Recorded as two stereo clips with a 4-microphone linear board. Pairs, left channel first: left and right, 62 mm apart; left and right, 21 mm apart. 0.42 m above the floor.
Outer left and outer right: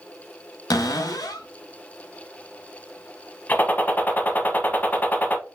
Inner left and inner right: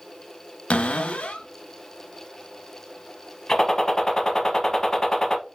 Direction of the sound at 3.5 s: 30° left (ahead or behind).